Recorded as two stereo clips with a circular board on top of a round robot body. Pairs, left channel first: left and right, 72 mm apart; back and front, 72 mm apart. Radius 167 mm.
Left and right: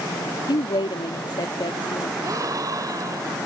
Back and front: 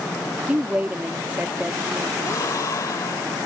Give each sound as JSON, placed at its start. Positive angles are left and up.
{"t": 0.5, "sound": "a woman speaking", "azimuth_deg": 70}
{"t": 2.2, "sound": "a gasp", "azimuth_deg": -135}